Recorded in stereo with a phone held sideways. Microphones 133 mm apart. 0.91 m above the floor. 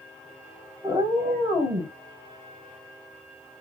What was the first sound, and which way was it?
A cat meowing, 25° right (ahead or behind).